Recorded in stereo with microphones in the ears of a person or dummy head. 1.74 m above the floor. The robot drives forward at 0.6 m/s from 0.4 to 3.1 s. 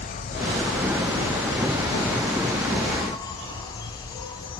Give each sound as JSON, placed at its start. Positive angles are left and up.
{"t": 0.0, "sound": "an insect", "side_deg": 35, "distance_m": 1.9}